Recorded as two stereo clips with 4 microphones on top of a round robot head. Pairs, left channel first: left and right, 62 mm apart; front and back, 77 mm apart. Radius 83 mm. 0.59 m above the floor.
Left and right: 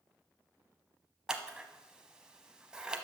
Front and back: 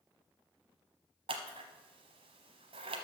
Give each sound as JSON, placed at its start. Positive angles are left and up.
{"t": 1.3, "sound": "scissors", "azimuth_deg": -170, "distance_m": 1.0}